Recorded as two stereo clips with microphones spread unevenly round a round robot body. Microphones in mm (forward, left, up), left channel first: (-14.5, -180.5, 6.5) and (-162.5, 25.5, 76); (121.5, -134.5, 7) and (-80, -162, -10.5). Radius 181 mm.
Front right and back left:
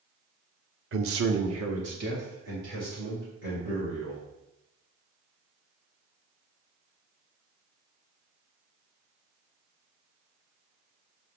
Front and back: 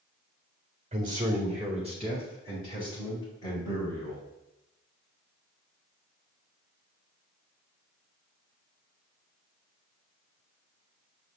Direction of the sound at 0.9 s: 155° left.